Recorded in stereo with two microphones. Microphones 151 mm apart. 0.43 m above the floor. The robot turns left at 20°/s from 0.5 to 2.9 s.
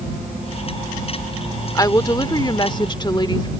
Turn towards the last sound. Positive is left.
turn(degrees=30)  # may be behind; listen again after turning